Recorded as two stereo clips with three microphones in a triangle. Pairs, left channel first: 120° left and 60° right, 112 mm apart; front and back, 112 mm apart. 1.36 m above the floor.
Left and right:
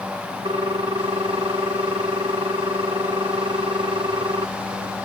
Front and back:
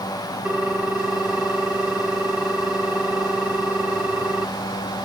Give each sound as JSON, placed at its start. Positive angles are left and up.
{"t": 0.5, "sound": "a ringtone", "azimuth_deg": -100}